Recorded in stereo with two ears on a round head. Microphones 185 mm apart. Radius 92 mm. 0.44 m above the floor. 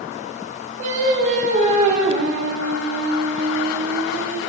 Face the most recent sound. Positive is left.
turn(degrees=-35)  # may be behind; listen again after turning